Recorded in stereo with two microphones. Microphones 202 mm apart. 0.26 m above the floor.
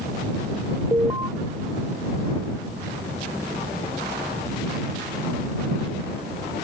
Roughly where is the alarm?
Right.